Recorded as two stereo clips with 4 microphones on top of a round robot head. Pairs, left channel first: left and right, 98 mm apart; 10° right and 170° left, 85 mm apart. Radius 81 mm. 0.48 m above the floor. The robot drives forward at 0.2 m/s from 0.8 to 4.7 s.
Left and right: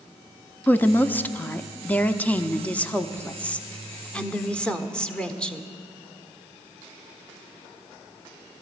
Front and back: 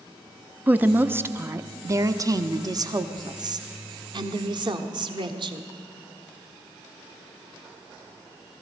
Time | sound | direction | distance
0.7 | a woman speaking | 135° left | 0.7 m